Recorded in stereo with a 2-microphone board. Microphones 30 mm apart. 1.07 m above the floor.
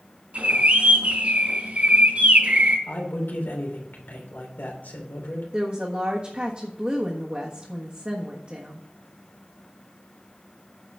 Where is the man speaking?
85° left, 3 m.